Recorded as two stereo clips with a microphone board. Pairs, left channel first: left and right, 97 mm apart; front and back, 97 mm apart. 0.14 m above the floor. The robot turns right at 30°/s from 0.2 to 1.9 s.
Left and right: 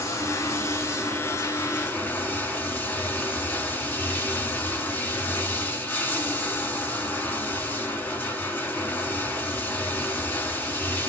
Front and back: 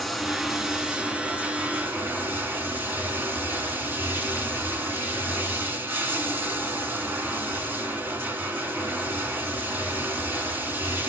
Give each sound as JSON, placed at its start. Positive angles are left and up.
{"t": 0.0, "sound": "running water", "azimuth_deg": 85, "distance_m": 1.4}